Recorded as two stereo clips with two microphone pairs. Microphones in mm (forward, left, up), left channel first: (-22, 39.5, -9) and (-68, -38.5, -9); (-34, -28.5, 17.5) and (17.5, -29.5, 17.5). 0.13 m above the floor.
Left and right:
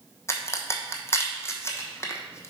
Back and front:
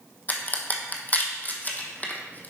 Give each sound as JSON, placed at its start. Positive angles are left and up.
{"t": 0.3, "sound": "a crack", "azimuth_deg": 120, "distance_m": 1.1}